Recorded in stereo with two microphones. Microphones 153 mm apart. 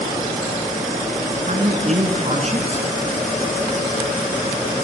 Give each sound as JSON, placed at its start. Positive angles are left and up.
{"t": 1.4, "sound": "a man speaking", "side_deg": -45, "distance_m": 3.0}